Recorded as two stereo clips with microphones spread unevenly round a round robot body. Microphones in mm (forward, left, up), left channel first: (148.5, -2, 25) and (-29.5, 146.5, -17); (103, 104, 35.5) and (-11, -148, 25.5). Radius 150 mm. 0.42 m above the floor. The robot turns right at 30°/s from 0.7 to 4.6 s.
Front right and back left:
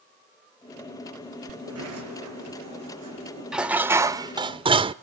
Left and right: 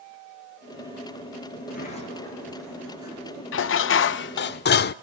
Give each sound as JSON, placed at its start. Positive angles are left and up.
{"t": 1.6, "sound": "a sliding door", "azimuth_deg": 125, "distance_m": 6.0}
{"t": 3.5, "sound": "dishes clattering", "azimuth_deg": 65, "distance_m": 0.5}